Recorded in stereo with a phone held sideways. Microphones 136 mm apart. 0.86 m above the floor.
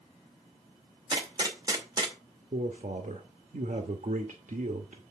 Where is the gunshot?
30° right (ahead or behind), 2 m.